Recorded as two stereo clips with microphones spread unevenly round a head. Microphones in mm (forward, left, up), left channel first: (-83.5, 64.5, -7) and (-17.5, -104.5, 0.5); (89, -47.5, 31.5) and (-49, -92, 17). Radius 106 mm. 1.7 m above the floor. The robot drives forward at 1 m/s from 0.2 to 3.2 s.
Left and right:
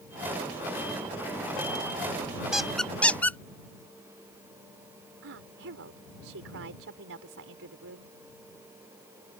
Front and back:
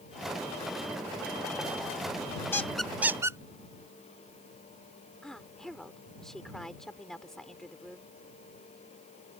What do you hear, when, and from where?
2.5 s a squeak: 5° left; by 3.4 s 170° left
5.2 s a woman speaking: 65° right